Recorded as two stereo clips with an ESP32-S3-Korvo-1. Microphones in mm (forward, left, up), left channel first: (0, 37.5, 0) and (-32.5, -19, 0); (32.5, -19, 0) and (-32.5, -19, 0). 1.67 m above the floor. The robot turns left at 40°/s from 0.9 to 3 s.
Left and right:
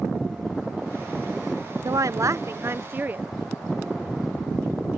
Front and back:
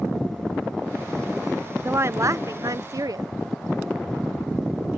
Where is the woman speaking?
135° right; by 3.2 s straight behind.